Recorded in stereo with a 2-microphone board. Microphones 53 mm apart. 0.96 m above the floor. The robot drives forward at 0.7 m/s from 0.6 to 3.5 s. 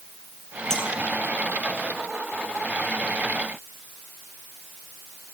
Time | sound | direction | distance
0.7 | a clink | 10° left (ahead or behind) | 7 m